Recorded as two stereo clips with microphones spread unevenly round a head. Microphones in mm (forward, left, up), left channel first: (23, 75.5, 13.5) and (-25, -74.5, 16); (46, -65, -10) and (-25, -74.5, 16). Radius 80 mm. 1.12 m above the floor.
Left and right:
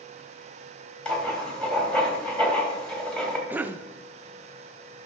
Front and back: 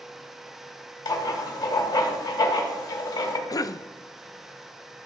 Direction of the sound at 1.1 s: 10° right.